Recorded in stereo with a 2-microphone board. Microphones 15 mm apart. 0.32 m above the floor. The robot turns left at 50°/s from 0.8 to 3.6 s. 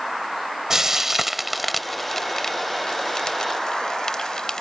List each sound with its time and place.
0.7 s frying: 25° right (ahead or behind); by 4.6 s 45° left (ahead or behind)